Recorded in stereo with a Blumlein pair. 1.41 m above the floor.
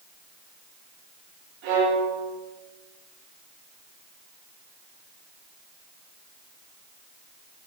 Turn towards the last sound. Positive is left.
turn(degrees=-45)